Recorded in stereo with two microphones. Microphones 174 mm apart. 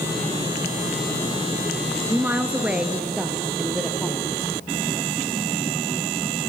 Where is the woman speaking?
15° right (ahead or behind), 1.1 m; by 4.3 s centre (ahead or behind), 2.5 m.